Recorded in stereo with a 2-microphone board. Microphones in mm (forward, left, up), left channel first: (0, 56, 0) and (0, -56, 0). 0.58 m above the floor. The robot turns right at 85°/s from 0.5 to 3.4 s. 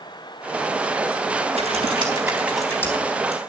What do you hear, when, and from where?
1.5 s typing on a keyboard: 90° right, 4 m; by 3.4 s 65° left, 4 m